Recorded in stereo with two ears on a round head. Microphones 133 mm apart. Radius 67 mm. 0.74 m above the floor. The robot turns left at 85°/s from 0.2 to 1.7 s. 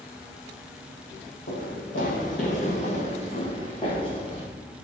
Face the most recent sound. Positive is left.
turn(degrees=30)  # may be behind; listen again after turning